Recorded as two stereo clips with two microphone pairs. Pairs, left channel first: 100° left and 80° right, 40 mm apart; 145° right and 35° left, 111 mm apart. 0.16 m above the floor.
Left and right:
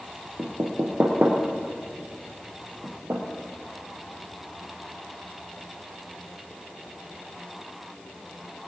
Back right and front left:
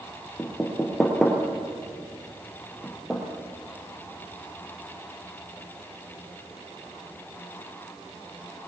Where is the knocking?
60° right, 2.5 m.